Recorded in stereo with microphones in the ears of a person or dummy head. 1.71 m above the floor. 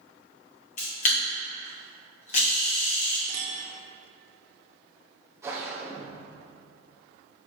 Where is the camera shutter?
40° left (ahead or behind), 1.5 m.